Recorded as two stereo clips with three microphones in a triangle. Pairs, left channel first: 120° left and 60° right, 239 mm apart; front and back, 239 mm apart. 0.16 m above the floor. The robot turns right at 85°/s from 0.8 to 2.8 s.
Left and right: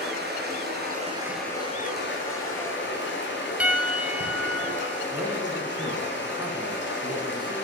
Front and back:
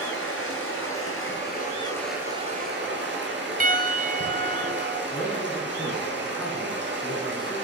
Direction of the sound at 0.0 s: 20° right.